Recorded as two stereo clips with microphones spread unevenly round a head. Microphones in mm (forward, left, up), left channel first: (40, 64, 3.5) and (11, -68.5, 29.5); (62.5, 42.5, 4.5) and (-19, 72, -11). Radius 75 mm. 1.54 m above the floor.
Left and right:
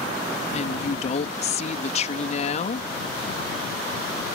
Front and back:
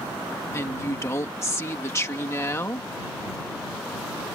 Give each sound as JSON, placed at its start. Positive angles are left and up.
{"t": 0.5, "sound": "a woman speaking", "azimuth_deg": 40}